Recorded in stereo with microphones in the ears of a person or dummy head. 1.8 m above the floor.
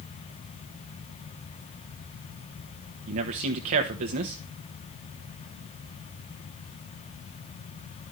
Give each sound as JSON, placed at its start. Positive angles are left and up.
{"t": 3.1, "sound": "a man speaking", "side_deg": -35, "distance_m": 1.2}